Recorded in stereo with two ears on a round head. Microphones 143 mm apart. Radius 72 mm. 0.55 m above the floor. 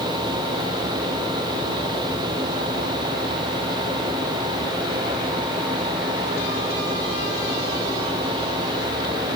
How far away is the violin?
No violin in this recording.